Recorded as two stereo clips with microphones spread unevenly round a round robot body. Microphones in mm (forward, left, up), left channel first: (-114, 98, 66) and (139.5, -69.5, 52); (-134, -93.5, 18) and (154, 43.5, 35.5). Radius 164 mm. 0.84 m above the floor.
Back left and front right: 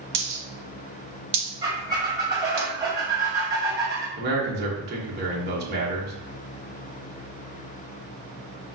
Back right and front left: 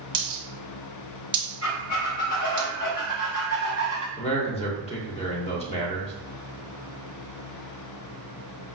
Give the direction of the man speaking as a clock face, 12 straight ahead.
3 o'clock.